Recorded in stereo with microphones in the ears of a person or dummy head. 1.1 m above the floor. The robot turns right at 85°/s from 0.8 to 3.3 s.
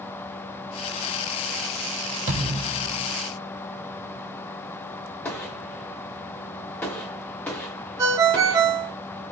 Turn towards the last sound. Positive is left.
turn(degrees=-20)  # may be behind; listen again after turning